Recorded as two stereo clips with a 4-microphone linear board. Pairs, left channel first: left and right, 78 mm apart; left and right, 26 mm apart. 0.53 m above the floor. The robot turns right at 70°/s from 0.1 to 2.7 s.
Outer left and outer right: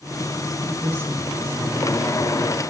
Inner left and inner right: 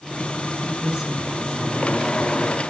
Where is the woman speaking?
50° right, 5.5 m; by 2.7 s 95° left, 5.5 m.